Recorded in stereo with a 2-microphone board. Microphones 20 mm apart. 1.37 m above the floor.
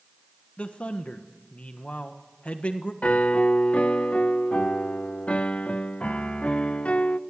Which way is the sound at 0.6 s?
70° left (ahead or behind).